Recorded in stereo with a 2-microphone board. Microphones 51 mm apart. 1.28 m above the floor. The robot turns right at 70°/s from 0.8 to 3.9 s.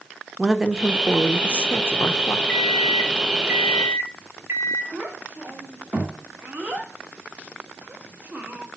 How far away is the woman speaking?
About 1.0 m.